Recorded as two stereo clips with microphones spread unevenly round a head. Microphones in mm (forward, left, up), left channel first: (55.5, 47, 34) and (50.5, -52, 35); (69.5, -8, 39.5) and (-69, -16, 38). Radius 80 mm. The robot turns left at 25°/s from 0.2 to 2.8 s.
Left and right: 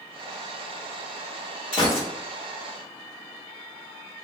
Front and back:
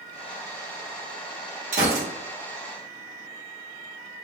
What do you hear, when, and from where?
1.7 s a gunshot: 145° left, 1.2 m; by 2.1 s 140° left, 1.2 m